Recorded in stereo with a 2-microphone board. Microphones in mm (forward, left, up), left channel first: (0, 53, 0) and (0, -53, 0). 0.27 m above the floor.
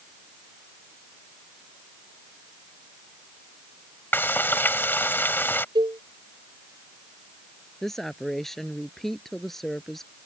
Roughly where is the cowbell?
Right.